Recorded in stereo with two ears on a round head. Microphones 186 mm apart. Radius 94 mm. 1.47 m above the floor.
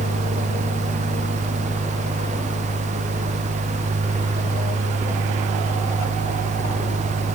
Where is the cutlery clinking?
No cutlery clinking in this recording.